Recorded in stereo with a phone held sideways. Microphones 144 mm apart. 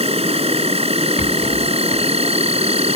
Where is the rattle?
50° left (ahead or behind).